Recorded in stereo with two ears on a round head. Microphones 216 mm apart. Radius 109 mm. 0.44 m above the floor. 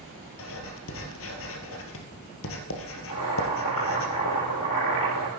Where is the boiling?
85° left, 8.5 m.